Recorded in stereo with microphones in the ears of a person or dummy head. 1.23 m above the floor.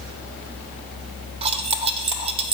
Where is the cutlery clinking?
35° right (ahead or behind), 0.8 m.